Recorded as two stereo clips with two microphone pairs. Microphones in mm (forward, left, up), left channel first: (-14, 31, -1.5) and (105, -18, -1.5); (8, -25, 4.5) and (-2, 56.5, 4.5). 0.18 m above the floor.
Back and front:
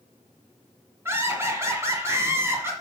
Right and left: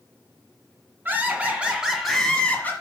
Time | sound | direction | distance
1.1 | laughter | 40° left | 2 m